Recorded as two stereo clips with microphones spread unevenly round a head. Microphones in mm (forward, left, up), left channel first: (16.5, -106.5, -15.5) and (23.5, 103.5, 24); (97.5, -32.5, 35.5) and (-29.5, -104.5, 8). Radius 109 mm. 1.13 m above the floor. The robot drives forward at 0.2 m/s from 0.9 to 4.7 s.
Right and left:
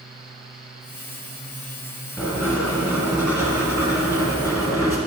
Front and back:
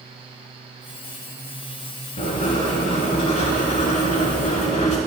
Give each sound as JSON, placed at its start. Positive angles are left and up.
{"t": 2.2, "sound": "writing", "azimuth_deg": 10, "distance_m": 1.9}